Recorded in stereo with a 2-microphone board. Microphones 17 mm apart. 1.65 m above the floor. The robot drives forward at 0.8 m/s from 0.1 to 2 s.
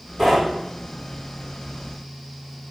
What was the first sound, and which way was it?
Knocking, 15° right (ahead or behind).